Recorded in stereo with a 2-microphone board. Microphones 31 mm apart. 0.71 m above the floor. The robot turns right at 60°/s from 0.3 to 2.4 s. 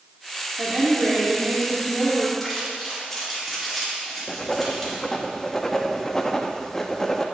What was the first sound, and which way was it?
A woman speaking, 135° right.